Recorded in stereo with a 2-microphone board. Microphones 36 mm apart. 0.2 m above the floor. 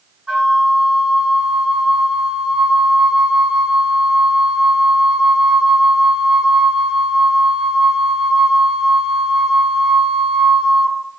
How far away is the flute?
About 1.4 m.